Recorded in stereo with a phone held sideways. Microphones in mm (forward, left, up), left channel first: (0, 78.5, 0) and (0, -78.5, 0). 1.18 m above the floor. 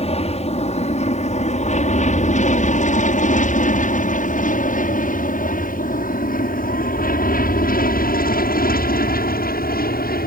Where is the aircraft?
40° left (ahead or behind); by 10.3 s 65° left (ahead or behind).